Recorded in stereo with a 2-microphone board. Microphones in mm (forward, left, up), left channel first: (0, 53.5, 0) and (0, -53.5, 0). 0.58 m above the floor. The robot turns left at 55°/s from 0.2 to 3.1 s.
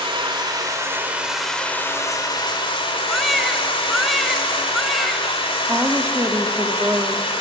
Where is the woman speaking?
30° right (ahead or behind), 1.3 m.